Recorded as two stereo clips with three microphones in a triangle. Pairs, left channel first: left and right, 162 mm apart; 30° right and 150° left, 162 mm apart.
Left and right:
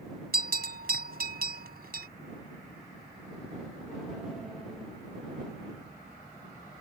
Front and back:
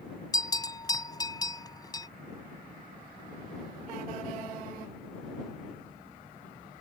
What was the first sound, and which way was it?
A bell, 95° right.